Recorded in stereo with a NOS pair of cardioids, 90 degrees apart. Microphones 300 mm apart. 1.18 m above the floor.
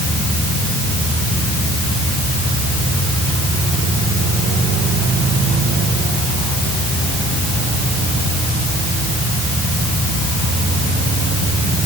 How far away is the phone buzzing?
I don't hear a phone buzzing.